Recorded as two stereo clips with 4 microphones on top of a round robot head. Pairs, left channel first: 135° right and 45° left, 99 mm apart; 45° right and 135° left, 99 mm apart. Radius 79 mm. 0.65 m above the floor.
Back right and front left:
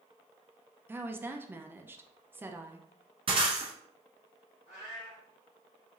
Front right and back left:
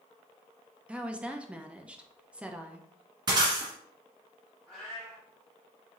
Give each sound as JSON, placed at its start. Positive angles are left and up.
{"t": 0.9, "sound": "a woman speaking", "azimuth_deg": 75, "distance_m": 0.7}
{"t": 3.3, "sound": "breaking glass", "azimuth_deg": 85, "distance_m": 1.3}
{"t": 4.7, "sound": "a cat meowing", "azimuth_deg": -130, "distance_m": 2.5}